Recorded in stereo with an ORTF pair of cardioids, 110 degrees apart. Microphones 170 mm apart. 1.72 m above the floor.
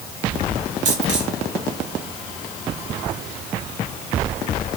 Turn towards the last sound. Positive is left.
turn(degrees=-45)